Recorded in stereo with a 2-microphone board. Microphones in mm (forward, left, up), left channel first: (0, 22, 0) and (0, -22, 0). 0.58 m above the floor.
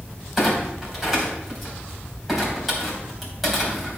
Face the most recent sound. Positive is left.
turn(degrees=0)  # may be behind; listen again after turning